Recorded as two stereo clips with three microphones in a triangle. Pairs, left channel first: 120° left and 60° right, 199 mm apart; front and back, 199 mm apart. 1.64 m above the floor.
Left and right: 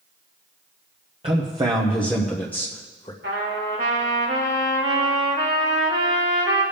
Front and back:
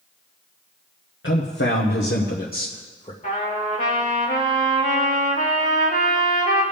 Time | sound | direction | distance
1.2 | a man speaking | straight ahead | 1.3 m
3.2 | a trumpet | 45° right | 3.5 m